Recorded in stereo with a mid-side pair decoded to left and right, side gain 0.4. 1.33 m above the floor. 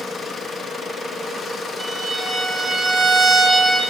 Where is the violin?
20° right, 1.9 m.